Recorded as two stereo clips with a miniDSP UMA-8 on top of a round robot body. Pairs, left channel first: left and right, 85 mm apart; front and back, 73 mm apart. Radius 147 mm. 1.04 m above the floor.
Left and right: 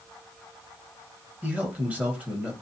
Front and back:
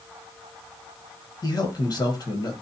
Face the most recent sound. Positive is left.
turn(degrees=-20)